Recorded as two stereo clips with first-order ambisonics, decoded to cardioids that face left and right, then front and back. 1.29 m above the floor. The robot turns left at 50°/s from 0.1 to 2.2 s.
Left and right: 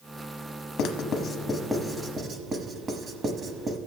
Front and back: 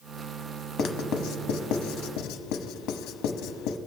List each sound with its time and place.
0.8 s writing: 55° left, 0.9 m; by 3.8 s 20° right, 0.9 m